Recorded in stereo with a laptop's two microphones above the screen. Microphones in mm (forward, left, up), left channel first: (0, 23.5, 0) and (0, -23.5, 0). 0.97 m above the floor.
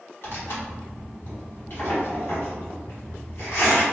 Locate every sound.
0.2 s tearing paper: 55° left (ahead or behind), 1.6 m